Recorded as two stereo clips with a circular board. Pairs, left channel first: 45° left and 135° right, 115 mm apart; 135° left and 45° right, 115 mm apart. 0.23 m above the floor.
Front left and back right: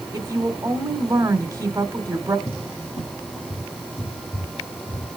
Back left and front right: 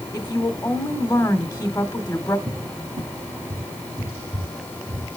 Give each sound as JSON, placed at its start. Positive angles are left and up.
{"t": 0.1, "sound": "a woman speaking", "azimuth_deg": 180, "distance_m": 1.4}
{"t": 2.5, "sound": "a cupboard door", "azimuth_deg": 10, "distance_m": 5.5}